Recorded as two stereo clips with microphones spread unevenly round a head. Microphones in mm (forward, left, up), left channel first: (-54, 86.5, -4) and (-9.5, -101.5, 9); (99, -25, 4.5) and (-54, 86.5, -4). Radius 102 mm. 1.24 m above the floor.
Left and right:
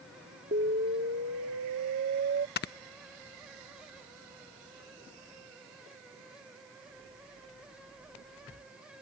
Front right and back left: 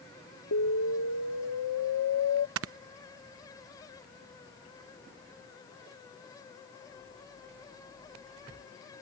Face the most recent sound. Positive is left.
turn(degrees=140)